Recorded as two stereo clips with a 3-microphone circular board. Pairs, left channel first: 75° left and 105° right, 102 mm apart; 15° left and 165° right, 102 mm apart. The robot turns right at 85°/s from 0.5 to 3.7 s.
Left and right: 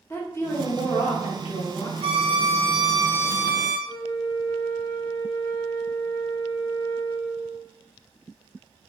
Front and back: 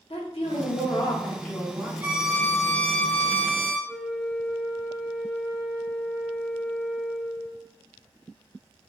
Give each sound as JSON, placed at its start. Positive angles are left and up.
{"t": 0.1, "sound": "a woman speaking", "azimuth_deg": 10, "distance_m": 0.7}
{"t": 2.0, "sound": "a violin", "azimuth_deg": -95, "distance_m": 0.6}
{"t": 3.9, "sound": "a flute", "azimuth_deg": 80, "distance_m": 0.8}